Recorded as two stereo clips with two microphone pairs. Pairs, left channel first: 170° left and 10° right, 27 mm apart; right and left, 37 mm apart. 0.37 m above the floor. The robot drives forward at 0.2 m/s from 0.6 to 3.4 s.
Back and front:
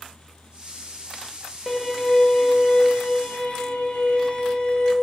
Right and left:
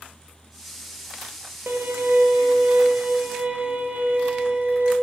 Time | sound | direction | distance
1.7 | a violin | 90° left | 0.5 m